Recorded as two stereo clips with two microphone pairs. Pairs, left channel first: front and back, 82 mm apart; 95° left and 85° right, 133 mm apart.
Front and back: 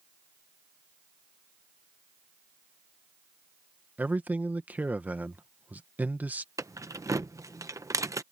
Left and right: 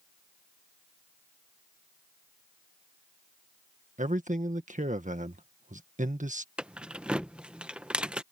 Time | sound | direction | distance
4.0 | a man speaking | 110° right | ?
6.6 | keys jangling | 165° right | ?